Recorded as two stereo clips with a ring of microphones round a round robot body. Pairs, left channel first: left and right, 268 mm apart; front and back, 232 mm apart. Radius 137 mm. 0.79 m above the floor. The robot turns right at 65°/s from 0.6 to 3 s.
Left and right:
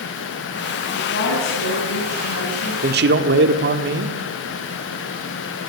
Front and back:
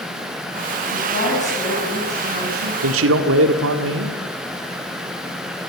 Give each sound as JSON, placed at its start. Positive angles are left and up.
{"t": 0.9, "sound": "a woman speaking", "azimuth_deg": 25, "distance_m": 6.0}
{"t": 2.8, "sound": "a man speaking", "azimuth_deg": -150, "distance_m": 1.8}